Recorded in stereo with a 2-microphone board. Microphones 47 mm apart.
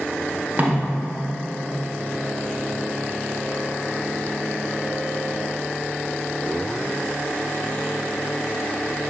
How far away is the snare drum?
About 0.9 m.